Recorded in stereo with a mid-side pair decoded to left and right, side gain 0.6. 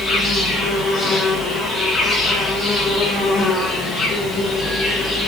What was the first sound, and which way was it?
An insect, 20° left.